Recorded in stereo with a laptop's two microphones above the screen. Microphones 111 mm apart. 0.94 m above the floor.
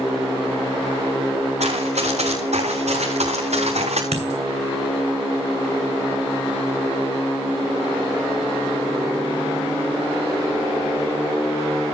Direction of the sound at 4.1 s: 75° right (ahead or behind).